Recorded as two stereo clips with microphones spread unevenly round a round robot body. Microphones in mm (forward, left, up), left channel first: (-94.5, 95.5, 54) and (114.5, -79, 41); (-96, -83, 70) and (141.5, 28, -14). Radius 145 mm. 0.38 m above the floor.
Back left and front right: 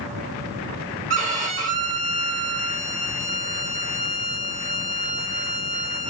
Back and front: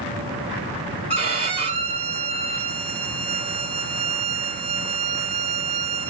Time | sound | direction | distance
1.1 | a violin | straight ahead | 1.0 m